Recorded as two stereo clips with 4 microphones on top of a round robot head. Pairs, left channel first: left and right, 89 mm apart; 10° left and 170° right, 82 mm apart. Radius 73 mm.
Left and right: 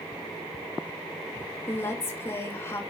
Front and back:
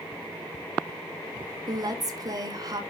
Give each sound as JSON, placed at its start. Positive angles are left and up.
{"t": 1.7, "sound": "a woman speaking", "azimuth_deg": 155, "distance_m": 1.8}